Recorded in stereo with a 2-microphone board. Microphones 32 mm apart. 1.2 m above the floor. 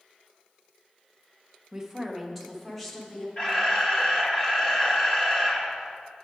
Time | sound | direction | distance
1.7 | a woman speaking | 20° right (ahead or behind) | 1.1 m
3.4 | a camera shutter | 20° left (ahead or behind) | 1.4 m